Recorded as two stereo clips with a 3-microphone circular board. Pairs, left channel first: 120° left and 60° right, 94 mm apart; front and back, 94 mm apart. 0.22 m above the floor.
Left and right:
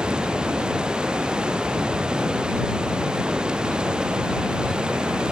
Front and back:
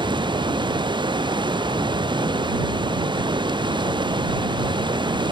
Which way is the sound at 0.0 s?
140° right.